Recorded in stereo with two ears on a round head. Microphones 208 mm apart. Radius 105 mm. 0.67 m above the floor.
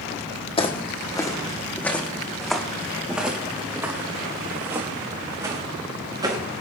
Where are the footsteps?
25° left (ahead or behind), 2 m; by 6.4 s 20° right (ahead or behind), 5 m.